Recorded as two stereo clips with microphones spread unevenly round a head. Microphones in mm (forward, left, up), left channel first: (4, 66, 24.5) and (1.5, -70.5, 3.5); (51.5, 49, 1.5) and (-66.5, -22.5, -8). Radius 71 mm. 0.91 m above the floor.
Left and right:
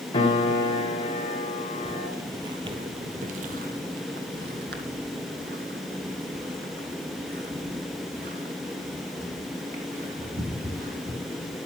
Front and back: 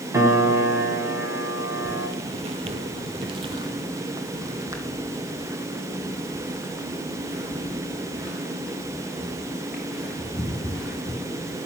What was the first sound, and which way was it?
A piano, 140° left.